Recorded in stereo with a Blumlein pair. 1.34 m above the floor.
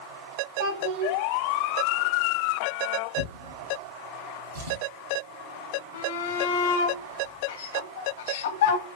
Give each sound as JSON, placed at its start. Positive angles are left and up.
{"t": 0.6, "sound": "a child speaking", "azimuth_deg": -50, "distance_m": 3.0}
{"t": 3.2, "sound": "a drawer", "azimuth_deg": -55, "distance_m": 4.0}
{"t": 5.9, "sound": "a shout", "azimuth_deg": 55, "distance_m": 1.9}